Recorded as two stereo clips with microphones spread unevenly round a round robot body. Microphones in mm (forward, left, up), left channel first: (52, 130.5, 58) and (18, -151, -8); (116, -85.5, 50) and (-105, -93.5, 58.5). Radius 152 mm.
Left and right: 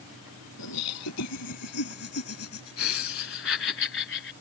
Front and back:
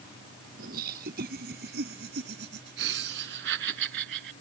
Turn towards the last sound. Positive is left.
turn(degrees=140)